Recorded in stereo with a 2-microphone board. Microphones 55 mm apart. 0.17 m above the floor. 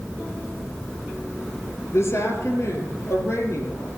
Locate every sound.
1.9 s a woman speaking: 55° left (ahead or behind), 3.5 m; by 3.9 s 60° left (ahead or behind), 5 m